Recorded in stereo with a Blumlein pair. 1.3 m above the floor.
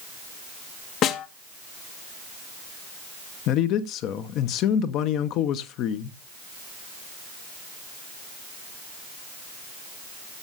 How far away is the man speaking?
About 0.9 m.